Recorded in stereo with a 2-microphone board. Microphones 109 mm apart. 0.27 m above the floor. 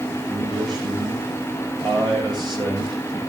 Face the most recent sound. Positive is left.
turn(degrees=-40)  # may be behind; listen again after turning